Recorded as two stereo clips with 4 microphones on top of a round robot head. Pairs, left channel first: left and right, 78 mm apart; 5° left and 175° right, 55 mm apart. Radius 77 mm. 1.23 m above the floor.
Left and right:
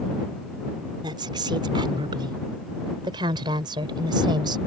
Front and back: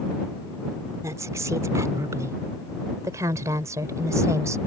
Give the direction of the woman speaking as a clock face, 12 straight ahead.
4 o'clock.